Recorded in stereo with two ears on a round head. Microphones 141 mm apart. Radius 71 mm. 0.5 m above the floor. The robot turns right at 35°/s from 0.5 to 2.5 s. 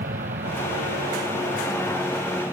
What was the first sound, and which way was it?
An aircraft, 65° right.